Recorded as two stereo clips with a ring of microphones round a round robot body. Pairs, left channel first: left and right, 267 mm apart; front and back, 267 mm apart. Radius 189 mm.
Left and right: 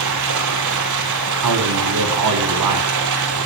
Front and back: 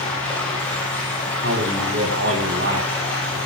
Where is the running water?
85° right, 5.5 m.